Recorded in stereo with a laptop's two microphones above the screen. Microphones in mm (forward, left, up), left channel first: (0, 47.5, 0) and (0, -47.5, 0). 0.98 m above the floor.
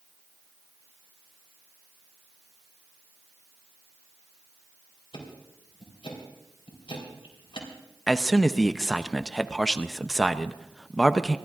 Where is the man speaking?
5° left (ahead or behind), 0.6 m.